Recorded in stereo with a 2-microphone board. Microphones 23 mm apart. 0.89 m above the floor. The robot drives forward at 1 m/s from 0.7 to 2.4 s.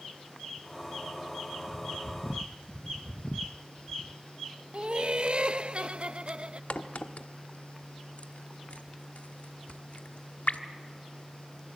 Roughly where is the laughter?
Right.